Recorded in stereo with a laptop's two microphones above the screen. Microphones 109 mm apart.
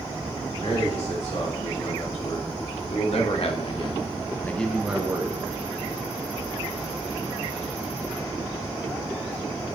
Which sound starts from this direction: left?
A man speaking, at 0.6 s.